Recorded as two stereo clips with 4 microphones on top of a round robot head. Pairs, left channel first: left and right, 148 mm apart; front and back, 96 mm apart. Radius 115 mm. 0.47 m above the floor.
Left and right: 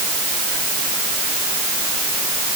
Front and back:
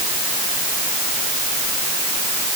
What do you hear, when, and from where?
Only background noise.